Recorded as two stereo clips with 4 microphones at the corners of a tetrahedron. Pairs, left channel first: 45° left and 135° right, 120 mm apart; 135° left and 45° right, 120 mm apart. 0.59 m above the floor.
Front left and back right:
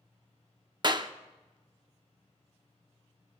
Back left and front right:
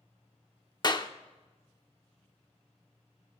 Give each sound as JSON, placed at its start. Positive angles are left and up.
{"t": 0.8, "sound": "a clap", "azimuth_deg": 180, "distance_m": 0.6}